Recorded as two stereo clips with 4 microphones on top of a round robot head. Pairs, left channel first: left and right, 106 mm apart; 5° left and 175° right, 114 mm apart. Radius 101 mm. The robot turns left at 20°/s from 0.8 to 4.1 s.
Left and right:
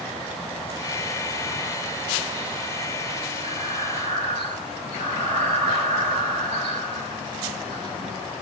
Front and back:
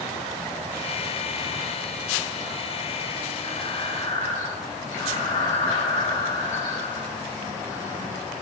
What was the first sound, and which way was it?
Breathing, 50° right.